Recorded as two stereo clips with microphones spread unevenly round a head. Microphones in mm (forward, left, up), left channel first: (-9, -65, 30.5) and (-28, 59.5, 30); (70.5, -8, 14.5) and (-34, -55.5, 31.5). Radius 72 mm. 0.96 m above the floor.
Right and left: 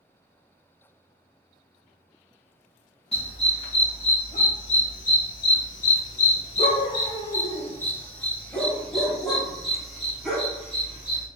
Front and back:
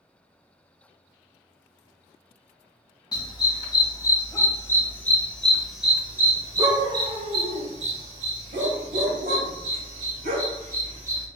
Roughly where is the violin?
No violin in this recording.